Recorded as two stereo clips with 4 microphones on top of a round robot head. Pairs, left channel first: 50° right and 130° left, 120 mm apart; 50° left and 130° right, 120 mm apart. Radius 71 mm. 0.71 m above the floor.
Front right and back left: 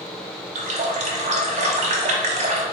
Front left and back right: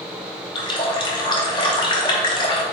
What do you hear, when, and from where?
0.6 s a running tap: 100° left, 0.9 m